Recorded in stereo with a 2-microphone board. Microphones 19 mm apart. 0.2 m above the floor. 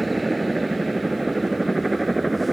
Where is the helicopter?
10° right (ahead or behind); by 2.5 s centre (ahead or behind).